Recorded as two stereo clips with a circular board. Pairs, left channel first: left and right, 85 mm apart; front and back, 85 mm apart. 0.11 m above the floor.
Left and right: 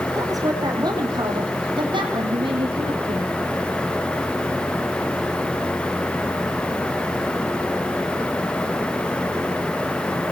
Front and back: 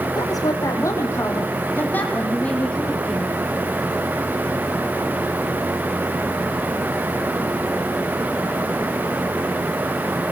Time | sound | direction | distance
0.1 | a woman speaking | 40° right | 4.5 m